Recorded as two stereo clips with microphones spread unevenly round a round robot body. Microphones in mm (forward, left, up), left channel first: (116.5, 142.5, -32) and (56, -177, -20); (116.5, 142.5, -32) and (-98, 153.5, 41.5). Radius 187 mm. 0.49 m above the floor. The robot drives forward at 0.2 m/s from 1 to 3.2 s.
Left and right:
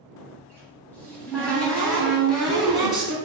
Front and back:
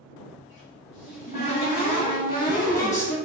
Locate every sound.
0.4 s a cupboard door: 5° right, 1.0 m; by 3.1 s 10° right, 0.7 m